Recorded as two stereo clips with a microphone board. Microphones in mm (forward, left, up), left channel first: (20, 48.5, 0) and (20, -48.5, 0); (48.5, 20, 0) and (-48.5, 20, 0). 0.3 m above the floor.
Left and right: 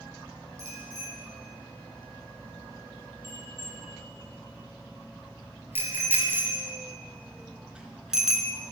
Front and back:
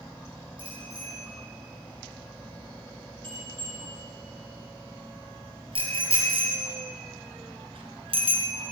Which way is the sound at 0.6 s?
145° right.